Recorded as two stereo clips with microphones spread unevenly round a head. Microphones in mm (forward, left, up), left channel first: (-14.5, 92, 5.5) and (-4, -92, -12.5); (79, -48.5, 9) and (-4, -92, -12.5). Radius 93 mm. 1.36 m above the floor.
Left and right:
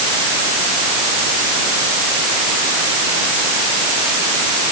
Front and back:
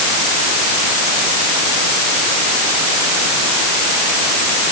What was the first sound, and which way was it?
Only background noise.